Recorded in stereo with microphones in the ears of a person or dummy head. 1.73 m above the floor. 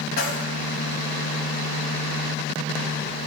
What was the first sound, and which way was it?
Keys jangling, 65° left (ahead or behind).